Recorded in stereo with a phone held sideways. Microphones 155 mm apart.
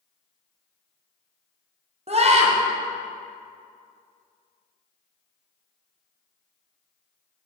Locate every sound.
2.1 s a scream: 45° right (ahead or behind), 1.0 m